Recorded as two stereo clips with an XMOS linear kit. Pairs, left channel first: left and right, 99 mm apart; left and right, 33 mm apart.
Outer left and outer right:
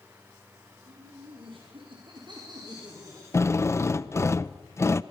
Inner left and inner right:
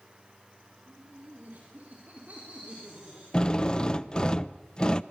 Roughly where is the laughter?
Right.